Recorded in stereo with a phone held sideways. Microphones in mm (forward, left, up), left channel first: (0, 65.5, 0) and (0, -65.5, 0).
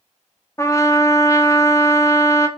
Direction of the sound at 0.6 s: 25° left (ahead or behind).